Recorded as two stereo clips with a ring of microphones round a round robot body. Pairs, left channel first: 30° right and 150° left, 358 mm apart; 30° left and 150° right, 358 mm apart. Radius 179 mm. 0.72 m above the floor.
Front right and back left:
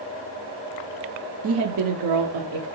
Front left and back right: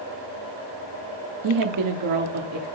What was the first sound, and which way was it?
A woman speaking, 165° right.